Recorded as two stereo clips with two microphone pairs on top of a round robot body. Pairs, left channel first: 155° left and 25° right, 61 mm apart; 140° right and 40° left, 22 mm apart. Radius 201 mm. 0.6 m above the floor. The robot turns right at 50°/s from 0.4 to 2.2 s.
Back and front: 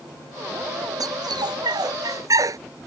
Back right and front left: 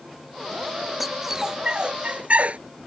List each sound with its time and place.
1.0 s a dog barking: 50° right; by 2.6 s 10° left